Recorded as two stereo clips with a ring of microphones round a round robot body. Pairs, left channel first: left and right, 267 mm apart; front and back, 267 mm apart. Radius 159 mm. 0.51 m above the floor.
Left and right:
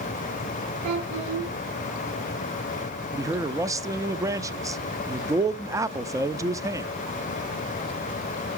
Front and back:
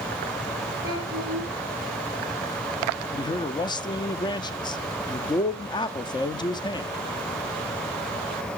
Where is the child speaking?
105° right, 9 m.